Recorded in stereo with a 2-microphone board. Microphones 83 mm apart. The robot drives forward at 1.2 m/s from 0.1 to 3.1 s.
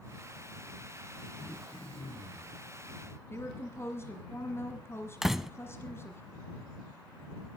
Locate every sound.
1.4 s throat clearing: 65° left (ahead or behind), 3 m
3.3 s a woman speaking: 30° left (ahead or behind), 1.5 m
5.2 s a door slam: 5° right (ahead or behind), 0.7 m